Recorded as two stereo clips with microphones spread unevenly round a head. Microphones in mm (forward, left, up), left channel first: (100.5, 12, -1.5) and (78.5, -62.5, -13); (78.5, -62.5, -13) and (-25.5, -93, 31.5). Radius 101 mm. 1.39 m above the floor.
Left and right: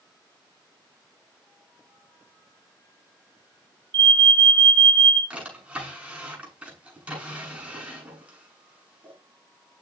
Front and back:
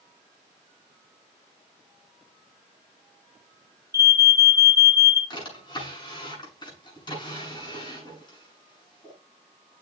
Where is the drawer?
35° right, 7 m.